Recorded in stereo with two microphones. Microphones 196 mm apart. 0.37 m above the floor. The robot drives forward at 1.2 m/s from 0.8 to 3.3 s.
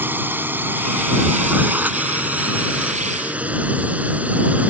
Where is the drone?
10° right (ahead or behind); by 4.7 s 5° right (ahead or behind).